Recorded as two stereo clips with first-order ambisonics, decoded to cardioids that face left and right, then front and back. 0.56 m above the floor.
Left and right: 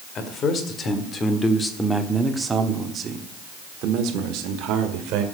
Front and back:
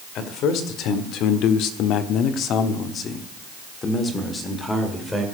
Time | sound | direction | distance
0.1 | a man speaking | 40° left | 1.9 m